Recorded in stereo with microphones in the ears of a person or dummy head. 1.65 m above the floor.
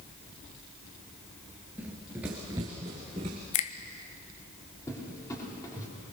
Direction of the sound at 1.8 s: 5° right (ahead or behind).